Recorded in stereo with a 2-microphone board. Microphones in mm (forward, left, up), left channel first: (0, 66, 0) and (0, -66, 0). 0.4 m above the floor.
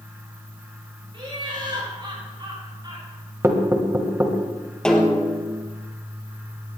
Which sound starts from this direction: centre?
A snare drum, at 4.8 s.